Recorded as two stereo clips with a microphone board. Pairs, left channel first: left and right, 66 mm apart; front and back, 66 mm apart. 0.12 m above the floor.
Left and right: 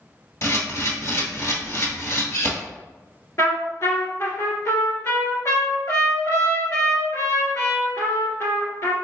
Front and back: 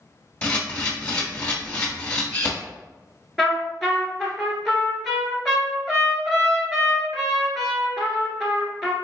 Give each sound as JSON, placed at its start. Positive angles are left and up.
{"t": 0.4, "sound": "a camera shutter", "azimuth_deg": 65, "distance_m": 1.3}
{"t": 3.4, "sound": "a trumpet", "azimuth_deg": 90, "distance_m": 1.5}